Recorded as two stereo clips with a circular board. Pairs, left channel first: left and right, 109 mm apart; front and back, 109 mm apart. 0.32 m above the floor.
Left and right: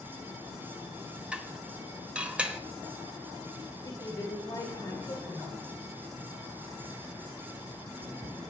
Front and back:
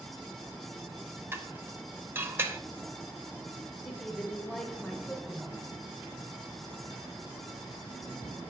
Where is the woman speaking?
90° left, 1.2 m.